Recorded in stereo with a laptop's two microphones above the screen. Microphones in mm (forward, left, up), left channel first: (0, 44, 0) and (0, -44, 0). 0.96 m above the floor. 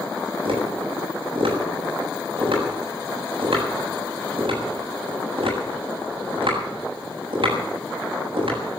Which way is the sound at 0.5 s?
75° right (ahead or behind).